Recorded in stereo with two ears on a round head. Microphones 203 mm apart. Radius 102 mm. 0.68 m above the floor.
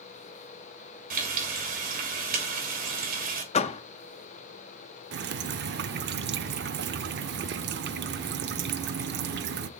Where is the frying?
40° right (ahead or behind), 2.5 m.